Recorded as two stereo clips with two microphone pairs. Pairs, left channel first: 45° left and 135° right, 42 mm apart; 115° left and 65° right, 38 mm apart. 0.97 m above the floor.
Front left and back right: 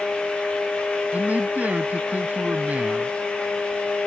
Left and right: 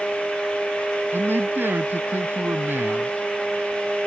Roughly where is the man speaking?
Right.